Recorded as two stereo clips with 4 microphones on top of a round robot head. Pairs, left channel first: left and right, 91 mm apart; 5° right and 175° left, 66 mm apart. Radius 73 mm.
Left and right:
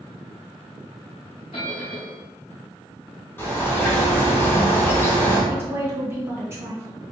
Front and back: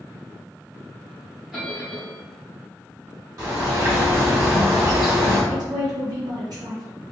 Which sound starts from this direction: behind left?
A bird, at 3.4 s.